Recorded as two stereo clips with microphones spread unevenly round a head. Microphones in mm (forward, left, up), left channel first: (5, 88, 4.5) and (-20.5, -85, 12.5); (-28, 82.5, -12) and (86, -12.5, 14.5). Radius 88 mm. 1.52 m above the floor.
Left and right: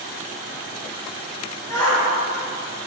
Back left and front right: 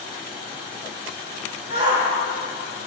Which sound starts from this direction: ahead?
A shout, at 1.7 s.